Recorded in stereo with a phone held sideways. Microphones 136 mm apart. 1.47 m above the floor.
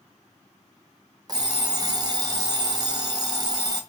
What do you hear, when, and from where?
1.3 s an alarm clock: 30° right (ahead or behind), 0.6 m